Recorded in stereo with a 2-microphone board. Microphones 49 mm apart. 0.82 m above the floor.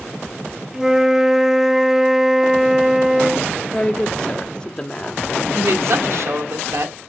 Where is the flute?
10° right (ahead or behind), 0.9 m.